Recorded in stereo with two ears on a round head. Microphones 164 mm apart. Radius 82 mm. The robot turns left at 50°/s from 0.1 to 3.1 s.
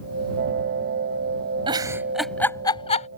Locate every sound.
1.7 s a giggle: 30° right (ahead or behind); by 3.1 s 40° left (ahead or behind)